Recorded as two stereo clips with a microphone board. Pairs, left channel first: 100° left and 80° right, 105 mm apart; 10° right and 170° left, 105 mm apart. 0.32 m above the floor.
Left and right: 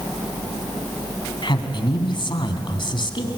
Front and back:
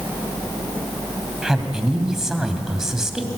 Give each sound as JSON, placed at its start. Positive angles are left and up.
{"t": 1.4, "sound": "a man speaking", "azimuth_deg": 85, "distance_m": 2.5}